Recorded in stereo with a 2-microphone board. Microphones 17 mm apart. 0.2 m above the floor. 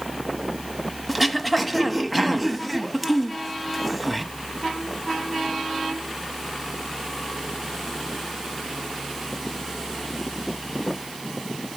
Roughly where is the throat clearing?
Centre.